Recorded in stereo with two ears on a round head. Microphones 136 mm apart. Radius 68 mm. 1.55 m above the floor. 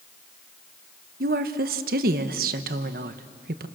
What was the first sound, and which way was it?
A woman speaking, 65° right (ahead or behind).